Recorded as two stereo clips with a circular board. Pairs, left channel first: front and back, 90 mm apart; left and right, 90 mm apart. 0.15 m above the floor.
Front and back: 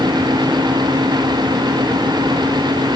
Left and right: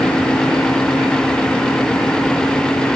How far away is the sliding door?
I don't hear a sliding door.